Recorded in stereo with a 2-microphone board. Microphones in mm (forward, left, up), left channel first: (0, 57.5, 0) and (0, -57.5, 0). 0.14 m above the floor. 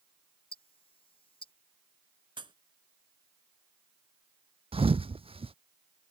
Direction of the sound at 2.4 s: 45° right (ahead or behind).